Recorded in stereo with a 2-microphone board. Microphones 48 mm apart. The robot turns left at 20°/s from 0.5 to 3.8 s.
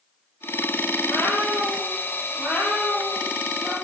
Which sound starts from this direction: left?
A cat meowing, at 1.0 s.